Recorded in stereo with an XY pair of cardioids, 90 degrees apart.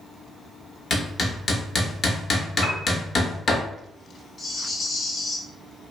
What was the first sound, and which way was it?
Hammering, 50° left.